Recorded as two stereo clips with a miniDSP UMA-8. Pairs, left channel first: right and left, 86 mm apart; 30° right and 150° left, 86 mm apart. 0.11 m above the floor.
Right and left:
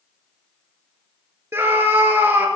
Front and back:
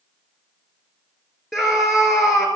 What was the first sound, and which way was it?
A scream, 55° left.